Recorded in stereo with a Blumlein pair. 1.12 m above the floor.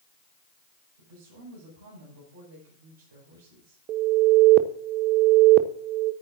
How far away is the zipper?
No zipper in this recording.